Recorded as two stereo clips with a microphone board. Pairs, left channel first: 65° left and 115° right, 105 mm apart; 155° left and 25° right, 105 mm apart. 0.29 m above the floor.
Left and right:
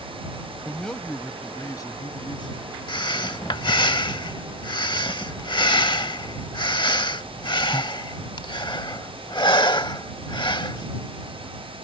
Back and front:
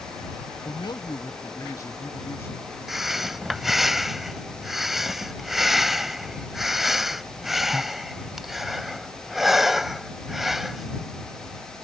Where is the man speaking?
160° left; by 2.8 s 90° left.